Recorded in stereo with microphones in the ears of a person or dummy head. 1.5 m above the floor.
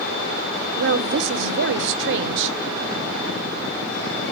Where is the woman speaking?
70° right (ahead or behind), 0.8 m.